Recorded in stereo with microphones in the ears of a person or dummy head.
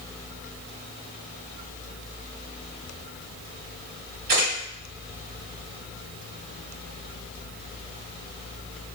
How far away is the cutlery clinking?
I don't hear cutlery clinking.